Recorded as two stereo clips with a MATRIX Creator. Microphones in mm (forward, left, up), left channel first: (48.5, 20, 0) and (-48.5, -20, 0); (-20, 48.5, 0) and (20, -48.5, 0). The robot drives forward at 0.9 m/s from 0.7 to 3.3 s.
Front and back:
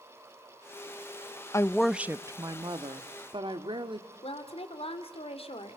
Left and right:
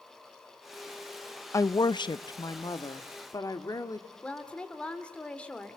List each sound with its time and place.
1.5 s a woman speaking: 65° left, 0.5 m; by 4.1 s 165° left, 1.5 m
4.2 s a woman speaking: 35° left, 3 m